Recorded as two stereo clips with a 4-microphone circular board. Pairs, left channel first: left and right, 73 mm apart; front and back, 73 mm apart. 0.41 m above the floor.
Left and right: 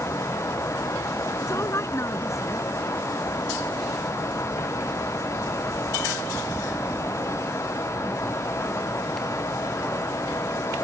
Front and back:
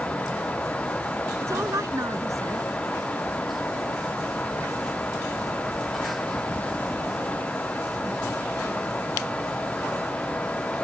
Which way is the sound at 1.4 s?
135° left.